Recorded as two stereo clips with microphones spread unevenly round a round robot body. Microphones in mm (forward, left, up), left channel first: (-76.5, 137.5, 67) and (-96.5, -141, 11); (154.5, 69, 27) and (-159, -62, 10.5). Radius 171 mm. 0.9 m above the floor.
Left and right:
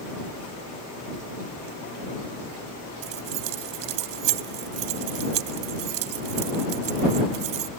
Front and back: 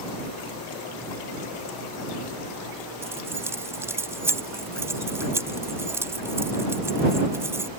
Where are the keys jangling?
75° right.